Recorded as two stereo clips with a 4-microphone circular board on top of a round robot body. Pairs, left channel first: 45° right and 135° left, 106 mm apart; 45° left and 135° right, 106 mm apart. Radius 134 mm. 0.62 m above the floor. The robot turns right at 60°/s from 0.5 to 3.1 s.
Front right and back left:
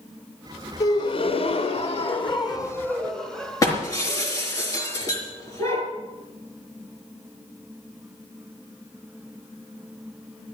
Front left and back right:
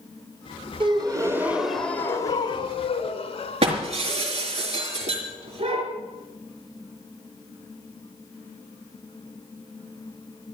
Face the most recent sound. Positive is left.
turn(degrees=-105)